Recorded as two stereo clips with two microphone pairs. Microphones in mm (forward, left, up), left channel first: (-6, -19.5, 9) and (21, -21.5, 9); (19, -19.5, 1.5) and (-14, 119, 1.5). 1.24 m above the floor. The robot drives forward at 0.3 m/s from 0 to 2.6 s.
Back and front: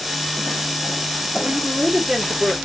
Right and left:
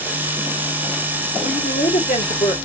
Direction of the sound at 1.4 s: 60° right.